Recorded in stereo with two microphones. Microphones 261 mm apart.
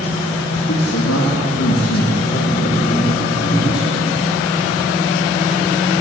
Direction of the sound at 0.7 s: 50° left (ahead or behind).